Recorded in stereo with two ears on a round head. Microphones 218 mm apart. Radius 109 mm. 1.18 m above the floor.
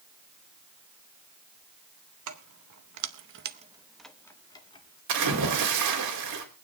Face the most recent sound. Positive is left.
turn(degrees=-80)